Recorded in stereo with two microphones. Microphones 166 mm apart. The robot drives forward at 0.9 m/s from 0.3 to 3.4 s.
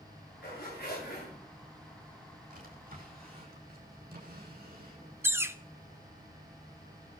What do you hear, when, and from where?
0.4 s a zipper: 75° left (ahead or behind), 9.5 m; by 1.3 s 70° left (ahead or behind), 10 m
2.5 s a drawer: 60° right (ahead or behind), 6 m; by 6.0 s 70° right (ahead or behind), 5.5 m
5.2 s a bird: 15° right (ahead or behind), 0.6 m